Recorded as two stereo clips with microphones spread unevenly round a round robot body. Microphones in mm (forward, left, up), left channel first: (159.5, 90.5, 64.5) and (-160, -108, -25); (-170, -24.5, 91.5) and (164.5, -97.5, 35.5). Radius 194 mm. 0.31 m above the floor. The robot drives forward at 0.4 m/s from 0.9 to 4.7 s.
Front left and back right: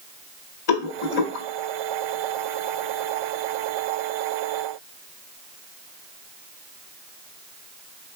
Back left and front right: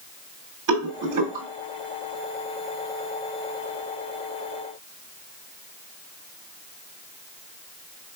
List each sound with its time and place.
0.7 s a rattle: 5° right, 1.9 m